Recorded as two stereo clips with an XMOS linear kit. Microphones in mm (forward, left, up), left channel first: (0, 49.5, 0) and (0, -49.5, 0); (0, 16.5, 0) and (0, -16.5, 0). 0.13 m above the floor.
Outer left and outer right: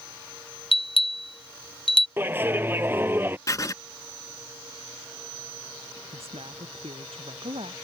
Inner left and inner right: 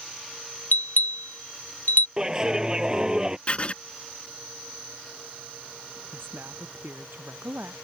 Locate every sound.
0.7 s a bell: 65° left (ahead or behind)
2.2 s a clap: 20° right (ahead or behind)
3.5 s writing: 35° left (ahead or behind)
6.1 s a woman speaking: 80° right